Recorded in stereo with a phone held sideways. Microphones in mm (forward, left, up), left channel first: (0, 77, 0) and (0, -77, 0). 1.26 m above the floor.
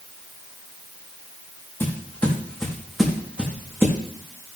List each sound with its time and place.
1.8 s footsteps: 15° left (ahead or behind), 3.5 m; by 4.0 s 20° right (ahead or behind), 3.5 m